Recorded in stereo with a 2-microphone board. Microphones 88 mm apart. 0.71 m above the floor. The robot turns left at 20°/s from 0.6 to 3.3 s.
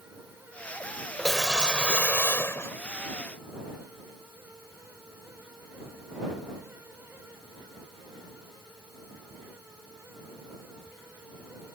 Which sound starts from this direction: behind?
A whoosh, at 1.2 s.